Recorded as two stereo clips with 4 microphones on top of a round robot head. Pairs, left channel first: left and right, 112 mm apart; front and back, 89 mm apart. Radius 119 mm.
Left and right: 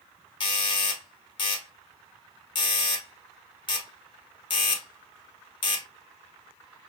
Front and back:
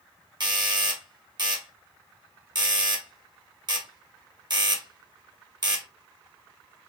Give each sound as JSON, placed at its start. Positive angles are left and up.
{"t": 0.4, "sound": "a doorbell", "azimuth_deg": 135, "distance_m": 1.1}